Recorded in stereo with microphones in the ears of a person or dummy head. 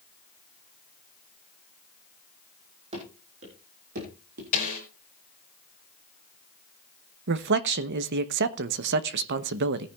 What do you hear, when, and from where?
2.9 s running footsteps: 30° right (ahead or behind), 4 m; by 4.4 s 45° right (ahead or behind), 3.5 m
4.5 s a snare drum: 45° left (ahead or behind), 5 m
7.3 s a man speaking: 55° right (ahead or behind), 0.9 m